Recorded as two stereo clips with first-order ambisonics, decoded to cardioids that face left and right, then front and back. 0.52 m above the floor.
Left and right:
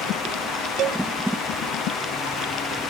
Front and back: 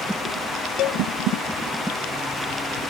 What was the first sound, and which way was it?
A cowbell, 35° right.